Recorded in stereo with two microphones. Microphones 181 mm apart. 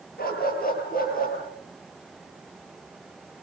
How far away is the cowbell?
No cowbell in this recording.